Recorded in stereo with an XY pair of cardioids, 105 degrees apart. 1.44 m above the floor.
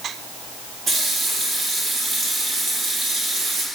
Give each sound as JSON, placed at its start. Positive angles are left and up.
{"t": 0.9, "sound": "a running tap", "azimuth_deg": -60, "distance_m": 1.8}